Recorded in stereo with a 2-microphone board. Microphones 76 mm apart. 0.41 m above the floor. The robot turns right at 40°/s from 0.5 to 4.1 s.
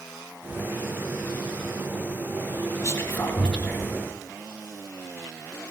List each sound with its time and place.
2.8 s whispering: 40° left (ahead or behind), 2.5 m; by 4.0 s 5° right (ahead or behind), 2.5 m